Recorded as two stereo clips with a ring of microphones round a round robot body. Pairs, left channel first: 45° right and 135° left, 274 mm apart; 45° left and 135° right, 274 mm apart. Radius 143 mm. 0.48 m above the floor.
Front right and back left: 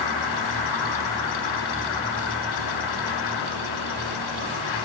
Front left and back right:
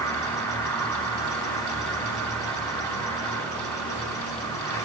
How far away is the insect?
About 1.3 m.